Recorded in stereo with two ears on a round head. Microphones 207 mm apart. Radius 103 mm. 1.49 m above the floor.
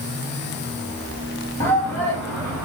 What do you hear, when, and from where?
1.6 s a shout: 10° left (ahead or behind), 3.5 m; by 2.7 s 5° right (ahead or behind), 4 m